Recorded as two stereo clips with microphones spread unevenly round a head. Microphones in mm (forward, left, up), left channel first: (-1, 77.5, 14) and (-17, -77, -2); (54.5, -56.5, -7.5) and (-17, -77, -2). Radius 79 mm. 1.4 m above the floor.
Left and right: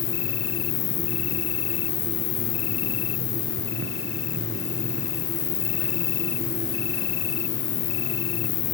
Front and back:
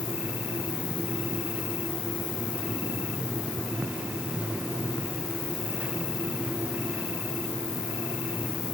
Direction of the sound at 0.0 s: 70° left.